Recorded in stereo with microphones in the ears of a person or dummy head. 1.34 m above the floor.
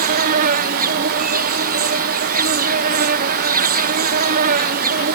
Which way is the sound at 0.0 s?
45° right (ahead or behind).